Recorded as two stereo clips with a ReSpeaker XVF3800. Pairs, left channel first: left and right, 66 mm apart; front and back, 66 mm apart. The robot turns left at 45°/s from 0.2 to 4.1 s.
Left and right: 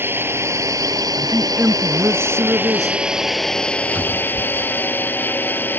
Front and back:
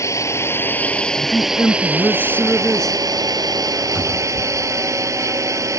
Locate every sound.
0.0 s a drone: 35° right; by 5.8 s 150° left
1.2 s a woman speaking: 5° right; by 3.0 s 90° right
4.0 s a cupboard door: 135° right; by 5.8 s 145° right